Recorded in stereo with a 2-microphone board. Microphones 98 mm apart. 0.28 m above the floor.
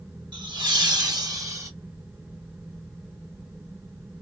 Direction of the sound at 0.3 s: 55° right (ahead or behind).